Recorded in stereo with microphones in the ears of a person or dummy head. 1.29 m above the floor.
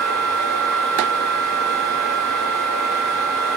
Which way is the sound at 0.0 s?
10° left (ahead or behind).